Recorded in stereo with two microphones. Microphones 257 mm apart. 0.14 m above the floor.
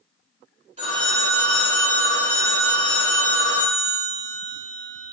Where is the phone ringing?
25° right (ahead or behind), 1.0 m.